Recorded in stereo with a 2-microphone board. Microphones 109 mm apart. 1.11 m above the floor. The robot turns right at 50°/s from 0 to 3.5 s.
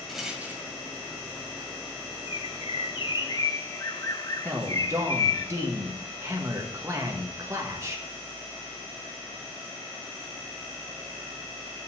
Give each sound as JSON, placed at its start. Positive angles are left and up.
{"t": 0.1, "sound": "a rattle", "side_deg": 5, "distance_m": 1.7}
{"t": 2.3, "sound": "a bird", "azimuth_deg": 75, "distance_m": 0.6}
{"t": 4.5, "sound": "a man speaking", "side_deg": -25, "distance_m": 1.6}